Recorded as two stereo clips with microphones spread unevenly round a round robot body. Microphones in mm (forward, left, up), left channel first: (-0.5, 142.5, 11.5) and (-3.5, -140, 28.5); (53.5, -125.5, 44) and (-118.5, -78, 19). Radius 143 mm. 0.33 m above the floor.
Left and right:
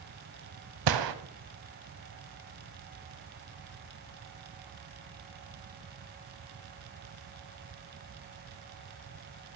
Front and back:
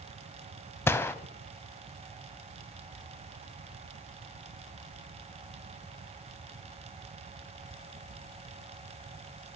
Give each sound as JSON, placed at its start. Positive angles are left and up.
{"t": 0.9, "sound": "a gunshot", "azimuth_deg": -95, "distance_m": 0.8}